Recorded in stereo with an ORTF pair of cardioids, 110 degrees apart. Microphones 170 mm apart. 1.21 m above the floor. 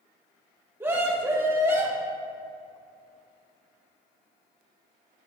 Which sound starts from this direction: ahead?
A scream, at 0.8 s.